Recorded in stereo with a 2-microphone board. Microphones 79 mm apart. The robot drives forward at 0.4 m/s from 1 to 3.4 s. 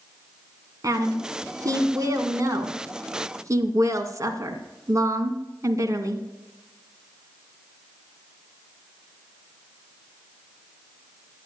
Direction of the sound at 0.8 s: 50° right (ahead or behind).